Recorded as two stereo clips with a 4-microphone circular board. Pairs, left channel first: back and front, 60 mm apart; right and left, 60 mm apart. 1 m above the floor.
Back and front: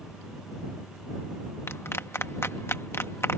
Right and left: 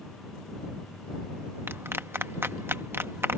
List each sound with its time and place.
1.7 s a clap: 135° left